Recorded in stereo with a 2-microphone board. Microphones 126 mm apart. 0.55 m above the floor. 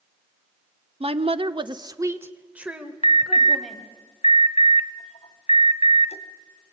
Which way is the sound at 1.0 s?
50° right (ahead or behind).